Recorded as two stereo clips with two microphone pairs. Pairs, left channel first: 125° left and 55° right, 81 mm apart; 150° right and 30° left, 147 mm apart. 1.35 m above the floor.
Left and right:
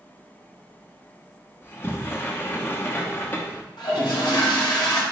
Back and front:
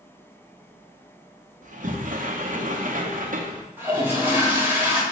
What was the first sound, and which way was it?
A sliding door, 60° left.